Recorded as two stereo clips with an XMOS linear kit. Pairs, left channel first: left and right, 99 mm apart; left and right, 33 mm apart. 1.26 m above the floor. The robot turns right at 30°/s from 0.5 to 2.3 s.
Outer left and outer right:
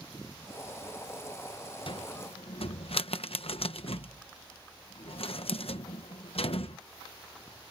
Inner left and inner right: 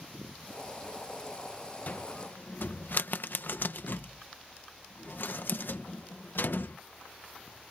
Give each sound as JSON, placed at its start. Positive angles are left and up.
{"t": 1.9, "sound": "a cupboard door", "side_deg": 60}